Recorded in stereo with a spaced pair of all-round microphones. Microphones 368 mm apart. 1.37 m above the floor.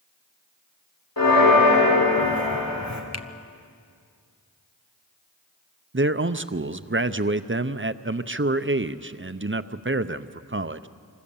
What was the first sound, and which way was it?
A bell, 70° left (ahead or behind).